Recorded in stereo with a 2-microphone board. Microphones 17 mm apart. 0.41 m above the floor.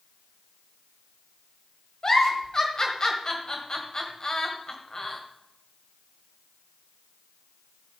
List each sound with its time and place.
2.0 s a giggle: 30° left (ahead or behind), 1.9 m